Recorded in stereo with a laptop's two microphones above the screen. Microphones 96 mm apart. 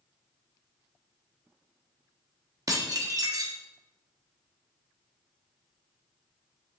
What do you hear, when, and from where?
2.7 s dishes clattering: 40° right (ahead or behind), 1.0 m